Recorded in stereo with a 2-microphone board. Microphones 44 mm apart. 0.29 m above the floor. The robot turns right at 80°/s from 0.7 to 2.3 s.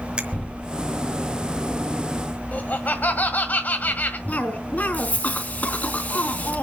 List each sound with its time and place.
0.2 s a finger snap: 25° right (ahead or behind), 1.6 m
2.5 s laughter: 40° left (ahead or behind), 1.6 m
4.3 s a cough: 40° left (ahead or behind), 3.5 m